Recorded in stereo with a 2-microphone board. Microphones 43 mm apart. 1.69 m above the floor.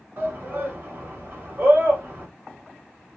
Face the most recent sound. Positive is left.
turn(degrees=-40)  # may be behind; listen again after turning